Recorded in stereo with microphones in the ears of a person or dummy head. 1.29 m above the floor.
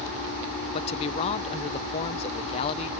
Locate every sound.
0.7 s a man speaking: 30° left (ahead or behind)